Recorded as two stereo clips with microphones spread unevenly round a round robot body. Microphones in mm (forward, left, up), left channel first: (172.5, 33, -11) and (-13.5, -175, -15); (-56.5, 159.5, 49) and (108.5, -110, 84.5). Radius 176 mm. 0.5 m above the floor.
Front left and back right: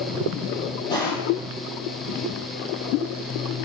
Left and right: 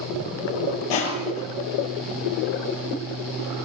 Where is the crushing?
130° left, 7 m.